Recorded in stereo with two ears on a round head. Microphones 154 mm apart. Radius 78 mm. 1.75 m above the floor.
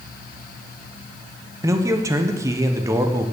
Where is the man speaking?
20° right (ahead or behind), 1.0 m.